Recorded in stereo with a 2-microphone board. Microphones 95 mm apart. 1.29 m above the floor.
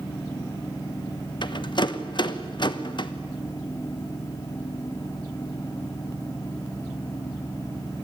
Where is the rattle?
50° left (ahead or behind), 1.2 m.